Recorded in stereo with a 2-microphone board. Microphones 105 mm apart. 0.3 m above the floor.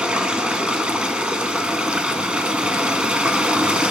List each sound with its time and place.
0.0 s running water: 10° right (ahead or behind), 0.7 m